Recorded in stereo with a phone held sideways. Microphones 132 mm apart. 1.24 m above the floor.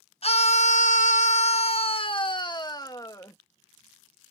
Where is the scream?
50° left (ahead or behind); by 3.4 s 25° left (ahead or behind).